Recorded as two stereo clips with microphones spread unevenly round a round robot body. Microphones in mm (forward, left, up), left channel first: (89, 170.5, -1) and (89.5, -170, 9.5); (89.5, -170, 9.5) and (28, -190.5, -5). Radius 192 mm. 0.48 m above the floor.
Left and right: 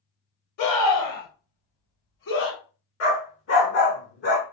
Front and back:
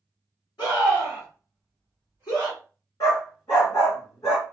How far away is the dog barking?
About 1.8 m.